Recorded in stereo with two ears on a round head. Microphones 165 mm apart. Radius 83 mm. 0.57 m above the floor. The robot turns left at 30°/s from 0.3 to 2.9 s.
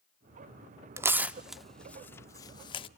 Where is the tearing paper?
15° right (ahead or behind), 0.5 m; by 2.9 s 30° left (ahead or behind), 0.5 m.